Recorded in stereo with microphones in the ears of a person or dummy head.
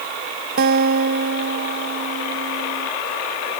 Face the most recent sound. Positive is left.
turn(degrees=-50)  # may be behind; listen again after turning